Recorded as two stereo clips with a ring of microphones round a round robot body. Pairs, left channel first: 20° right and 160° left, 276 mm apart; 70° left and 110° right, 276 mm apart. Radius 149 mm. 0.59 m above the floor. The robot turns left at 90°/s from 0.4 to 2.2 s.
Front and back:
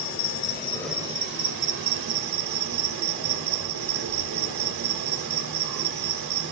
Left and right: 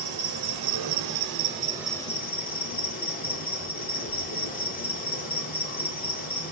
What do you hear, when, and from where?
0.0 s an insect: 70° right, 0.9 m; by 6.5 s 130° left, 0.9 m